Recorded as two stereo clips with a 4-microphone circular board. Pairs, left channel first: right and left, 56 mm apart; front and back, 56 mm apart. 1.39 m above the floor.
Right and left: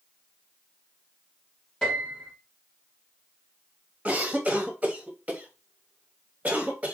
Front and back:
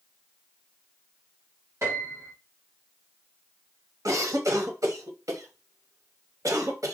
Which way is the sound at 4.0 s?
155° left.